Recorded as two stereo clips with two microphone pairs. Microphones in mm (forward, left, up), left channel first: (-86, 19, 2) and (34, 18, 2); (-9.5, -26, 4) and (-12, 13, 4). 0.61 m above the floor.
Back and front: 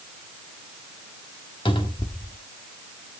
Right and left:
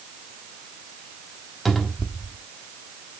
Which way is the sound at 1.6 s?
175° right.